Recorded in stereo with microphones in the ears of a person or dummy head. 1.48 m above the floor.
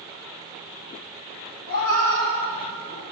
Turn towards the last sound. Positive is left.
turn(degrees=80)